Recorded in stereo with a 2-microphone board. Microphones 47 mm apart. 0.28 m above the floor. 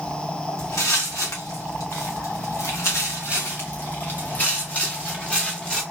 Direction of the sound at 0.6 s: 80° left.